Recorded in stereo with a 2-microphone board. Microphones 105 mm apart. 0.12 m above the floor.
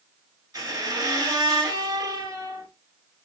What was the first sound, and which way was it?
A squeak, 35° right (ahead or behind).